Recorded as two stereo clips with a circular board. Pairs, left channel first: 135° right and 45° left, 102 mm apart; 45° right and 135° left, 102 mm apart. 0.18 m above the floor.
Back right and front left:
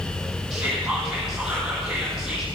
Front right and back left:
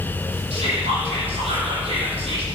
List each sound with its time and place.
0.5 s whispering: 125° left, 6 m